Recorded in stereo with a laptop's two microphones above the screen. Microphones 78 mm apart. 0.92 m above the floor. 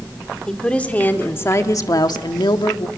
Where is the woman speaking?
10° left (ahead or behind), 2 m; by 2.9 s 80° left, 1.6 m.